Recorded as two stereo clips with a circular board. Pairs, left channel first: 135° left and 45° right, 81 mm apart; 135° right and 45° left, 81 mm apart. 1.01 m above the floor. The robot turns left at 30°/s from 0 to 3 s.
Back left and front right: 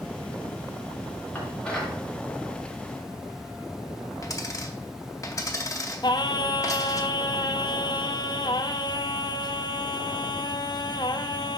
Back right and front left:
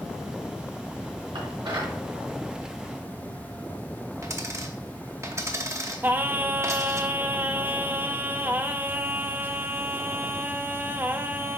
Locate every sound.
1.4 s dishes clattering: 70° left, 2 m; by 2.0 s 50° left, 2 m
4.2 s a dropped coin: 90° left, 0.8 m
6.0 s singing: 110° left, 0.5 m